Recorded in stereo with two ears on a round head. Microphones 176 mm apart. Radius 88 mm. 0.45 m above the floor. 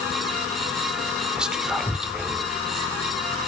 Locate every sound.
1.4 s whispering: 5° right (ahead or behind), 1.0 m